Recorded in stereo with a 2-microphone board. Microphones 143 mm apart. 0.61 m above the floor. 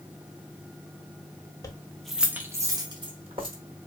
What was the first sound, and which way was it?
Keys jangling, 25° left (ahead or behind).